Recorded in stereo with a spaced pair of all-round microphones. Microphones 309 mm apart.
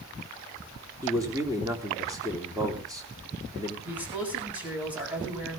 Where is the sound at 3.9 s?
5° right (ahead or behind), 8 m.